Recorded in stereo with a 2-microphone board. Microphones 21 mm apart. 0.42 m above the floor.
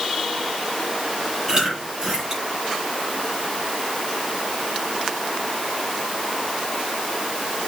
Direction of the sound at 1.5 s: 30° right (ahead or behind).